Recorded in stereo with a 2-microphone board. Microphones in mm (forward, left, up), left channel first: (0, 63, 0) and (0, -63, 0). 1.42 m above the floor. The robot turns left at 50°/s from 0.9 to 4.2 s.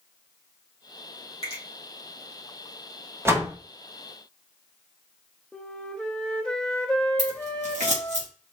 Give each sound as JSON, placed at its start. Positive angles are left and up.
{"t": 1.4, "sound": "a finger snap", "side_deg": 55, "distance_m": 2.0}
{"t": 3.2, "sound": "a door slam", "side_deg": -20, "distance_m": 1.1}
{"t": 5.5, "sound": "a flute", "side_deg": 5, "distance_m": 0.6}
{"t": 7.2, "sound": "scissors", "side_deg": -70, "distance_m": 1.7}